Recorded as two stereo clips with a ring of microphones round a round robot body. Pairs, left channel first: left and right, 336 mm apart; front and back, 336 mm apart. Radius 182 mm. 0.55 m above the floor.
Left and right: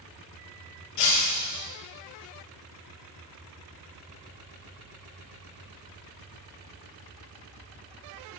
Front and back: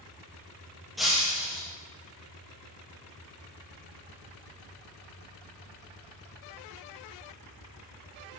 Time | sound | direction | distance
1.0 | breaking glass | 90° left | 3 m